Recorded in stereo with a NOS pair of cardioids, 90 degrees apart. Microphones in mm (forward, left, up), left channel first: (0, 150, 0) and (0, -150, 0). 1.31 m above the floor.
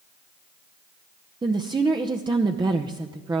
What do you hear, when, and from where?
1.4 s a woman speaking: 15° right, 0.7 m